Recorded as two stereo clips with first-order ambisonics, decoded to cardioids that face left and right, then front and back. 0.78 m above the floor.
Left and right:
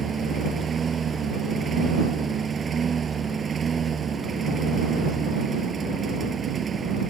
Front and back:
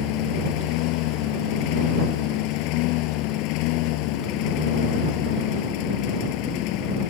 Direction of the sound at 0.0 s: 20° right.